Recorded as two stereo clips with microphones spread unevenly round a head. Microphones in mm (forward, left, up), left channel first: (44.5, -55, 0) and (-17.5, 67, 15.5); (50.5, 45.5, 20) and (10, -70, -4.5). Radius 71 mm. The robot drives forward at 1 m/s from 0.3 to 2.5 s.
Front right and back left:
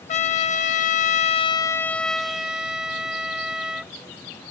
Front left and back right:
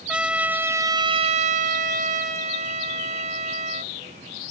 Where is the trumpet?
25° right; by 3.9 s 160° right.